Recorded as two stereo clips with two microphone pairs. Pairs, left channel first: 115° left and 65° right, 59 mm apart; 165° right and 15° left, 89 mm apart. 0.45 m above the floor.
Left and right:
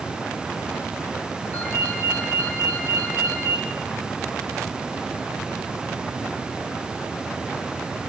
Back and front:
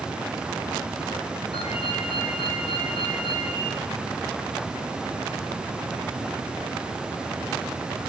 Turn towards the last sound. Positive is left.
turn(degrees=175)